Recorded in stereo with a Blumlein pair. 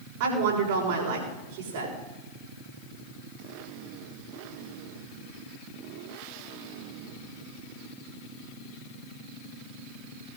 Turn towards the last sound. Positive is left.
turn(degrees=-50)